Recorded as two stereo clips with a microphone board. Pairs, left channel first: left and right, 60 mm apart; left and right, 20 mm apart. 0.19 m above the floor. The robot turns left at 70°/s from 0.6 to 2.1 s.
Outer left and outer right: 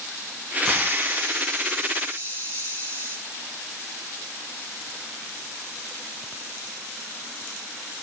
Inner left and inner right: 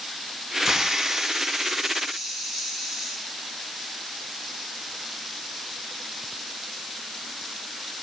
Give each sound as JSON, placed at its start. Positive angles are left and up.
{"t": 0.7, "sound": "a hiss", "azimuth_deg": -15, "distance_m": 4.5}